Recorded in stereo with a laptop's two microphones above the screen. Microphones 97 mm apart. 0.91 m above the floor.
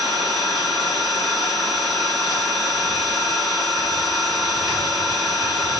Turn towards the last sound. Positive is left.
turn(degrees=-45)  # may be behind; listen again after turning